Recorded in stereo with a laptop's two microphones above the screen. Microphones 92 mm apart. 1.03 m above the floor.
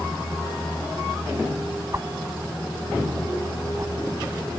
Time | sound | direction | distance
1.9 | a whoosh | 35° right (ahead or behind) | ?